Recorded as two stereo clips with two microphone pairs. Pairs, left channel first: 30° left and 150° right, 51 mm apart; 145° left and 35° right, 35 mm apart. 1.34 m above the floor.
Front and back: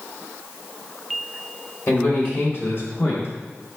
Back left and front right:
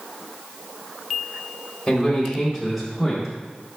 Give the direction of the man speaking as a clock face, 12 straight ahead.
10 o'clock.